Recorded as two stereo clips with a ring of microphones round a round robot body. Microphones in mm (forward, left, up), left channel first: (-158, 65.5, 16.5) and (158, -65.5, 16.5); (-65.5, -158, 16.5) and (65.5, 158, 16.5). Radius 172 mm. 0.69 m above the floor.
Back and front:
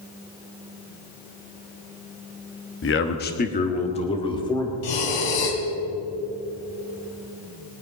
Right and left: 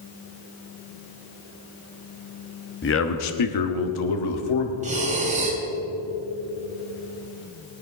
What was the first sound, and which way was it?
A man speaking, 160° right.